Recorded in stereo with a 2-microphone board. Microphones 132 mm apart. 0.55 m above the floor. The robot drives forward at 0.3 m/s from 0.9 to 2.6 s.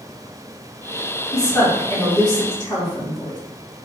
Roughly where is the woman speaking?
Left.